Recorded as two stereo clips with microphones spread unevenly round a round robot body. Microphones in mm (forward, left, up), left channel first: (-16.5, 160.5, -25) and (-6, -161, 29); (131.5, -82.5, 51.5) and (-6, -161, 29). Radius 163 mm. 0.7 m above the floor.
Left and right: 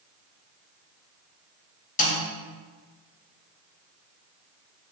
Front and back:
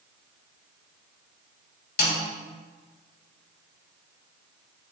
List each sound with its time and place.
2.0 s a snare drum: 25° left, 2.5 m